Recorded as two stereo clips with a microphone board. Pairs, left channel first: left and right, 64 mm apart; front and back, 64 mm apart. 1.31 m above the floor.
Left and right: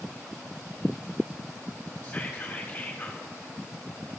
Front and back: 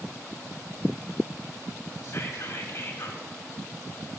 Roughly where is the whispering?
Ahead.